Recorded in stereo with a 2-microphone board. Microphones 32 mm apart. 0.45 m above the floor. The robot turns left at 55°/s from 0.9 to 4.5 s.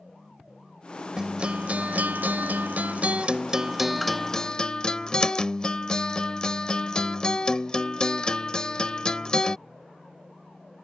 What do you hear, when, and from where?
1.2 s a guitar: 25° right; by 9.6 s 155° left